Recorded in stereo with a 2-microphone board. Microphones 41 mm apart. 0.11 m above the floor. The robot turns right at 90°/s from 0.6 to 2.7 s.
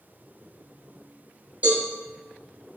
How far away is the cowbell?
About 1.6 m.